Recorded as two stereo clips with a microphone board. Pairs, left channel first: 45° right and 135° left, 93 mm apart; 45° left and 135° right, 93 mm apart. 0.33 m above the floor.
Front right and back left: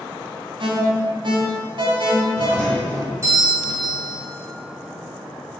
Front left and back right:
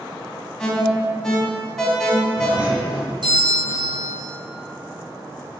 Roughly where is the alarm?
Behind left.